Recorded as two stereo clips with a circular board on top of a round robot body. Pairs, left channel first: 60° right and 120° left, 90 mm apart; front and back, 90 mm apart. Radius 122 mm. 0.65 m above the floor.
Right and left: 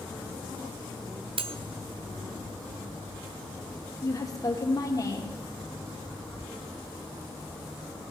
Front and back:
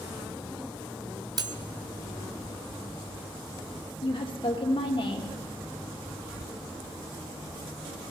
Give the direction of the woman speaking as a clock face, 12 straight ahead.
12 o'clock.